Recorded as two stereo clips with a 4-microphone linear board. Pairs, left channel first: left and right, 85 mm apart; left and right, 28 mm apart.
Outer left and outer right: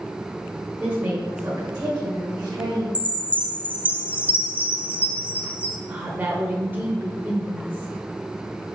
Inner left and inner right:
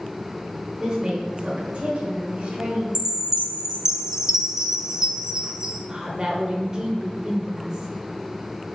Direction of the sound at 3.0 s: 20° right (ahead or behind).